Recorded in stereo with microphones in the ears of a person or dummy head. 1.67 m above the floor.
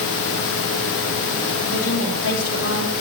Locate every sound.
1.7 s a woman speaking: 65° left (ahead or behind), 3.5 m